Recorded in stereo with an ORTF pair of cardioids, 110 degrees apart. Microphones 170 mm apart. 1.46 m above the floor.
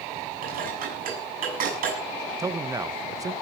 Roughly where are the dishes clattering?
Ahead right.